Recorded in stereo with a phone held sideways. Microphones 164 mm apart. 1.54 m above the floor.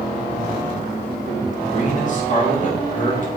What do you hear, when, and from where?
1.6 s a man speaking: 50° left (ahead or behind), 2 m